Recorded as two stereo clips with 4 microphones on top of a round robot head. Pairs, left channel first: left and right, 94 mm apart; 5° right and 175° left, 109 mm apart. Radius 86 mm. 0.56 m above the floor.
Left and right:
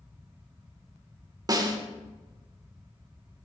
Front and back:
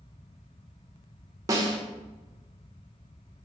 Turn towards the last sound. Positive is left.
turn(degrees=-130)